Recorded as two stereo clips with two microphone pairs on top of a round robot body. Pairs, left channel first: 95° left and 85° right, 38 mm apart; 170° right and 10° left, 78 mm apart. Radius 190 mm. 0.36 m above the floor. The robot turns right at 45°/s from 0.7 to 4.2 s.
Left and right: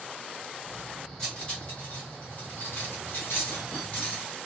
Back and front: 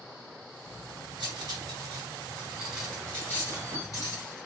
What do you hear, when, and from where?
1.2 s cutlery clinking: 20° left, 2 m; by 4.5 s 155° left, 2 m